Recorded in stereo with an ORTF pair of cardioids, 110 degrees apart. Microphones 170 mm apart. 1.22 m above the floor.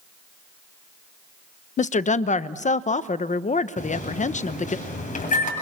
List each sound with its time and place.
1.8 s a woman speaking: 45° left, 0.9 m
3.8 s a microwave: 50° left, 7.5 m